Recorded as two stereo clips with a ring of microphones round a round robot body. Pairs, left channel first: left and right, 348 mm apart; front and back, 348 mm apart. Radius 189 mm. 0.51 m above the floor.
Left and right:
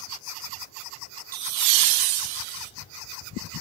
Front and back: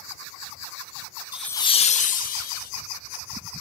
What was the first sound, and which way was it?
Laughter, 100° right.